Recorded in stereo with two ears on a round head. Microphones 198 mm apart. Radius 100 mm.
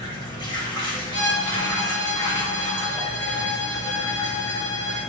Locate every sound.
0.0 s running water: 20° left (ahead or behind), 1.3 m
1.1 s a violin: 30° left (ahead or behind), 3 m